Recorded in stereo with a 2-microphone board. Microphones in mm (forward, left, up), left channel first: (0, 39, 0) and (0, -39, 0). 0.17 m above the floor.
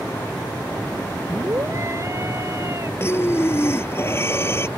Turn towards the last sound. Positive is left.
turn(degrees=30)  # may be behind; listen again after turning